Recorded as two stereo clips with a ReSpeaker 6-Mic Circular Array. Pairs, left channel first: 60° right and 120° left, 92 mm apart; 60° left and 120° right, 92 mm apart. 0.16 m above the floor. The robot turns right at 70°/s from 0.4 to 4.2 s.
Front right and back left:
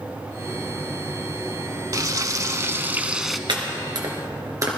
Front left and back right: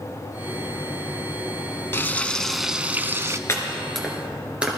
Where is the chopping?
115° left, 2.5 m; by 4.7 s 165° left, 2.5 m.